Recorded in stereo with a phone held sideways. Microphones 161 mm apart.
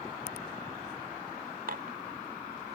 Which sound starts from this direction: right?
Dishes clattering, at 1.7 s.